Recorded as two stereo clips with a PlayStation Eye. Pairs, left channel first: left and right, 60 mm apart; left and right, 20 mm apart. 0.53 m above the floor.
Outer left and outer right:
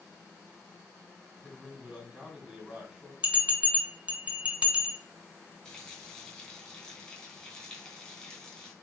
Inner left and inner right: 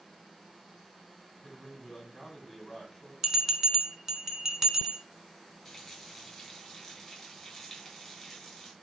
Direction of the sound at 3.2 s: 20° right (ahead or behind).